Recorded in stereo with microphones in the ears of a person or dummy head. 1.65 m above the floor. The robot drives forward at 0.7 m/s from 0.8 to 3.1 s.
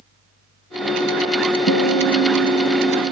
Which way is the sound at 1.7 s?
65° left (ahead or behind).